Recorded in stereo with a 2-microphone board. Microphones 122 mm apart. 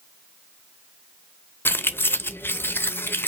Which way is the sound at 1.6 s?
15° left (ahead or behind).